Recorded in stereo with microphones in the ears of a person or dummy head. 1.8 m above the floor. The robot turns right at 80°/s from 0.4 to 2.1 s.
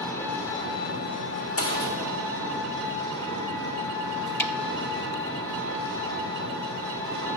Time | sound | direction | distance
0.0 | an engine running | 15° left | 1.6 m
1.6 | a gunshot | 40° left (ahead or behind) | 1.2 m
4.4 | a snare drum | 10° left (ahead or behind) | 0.9 m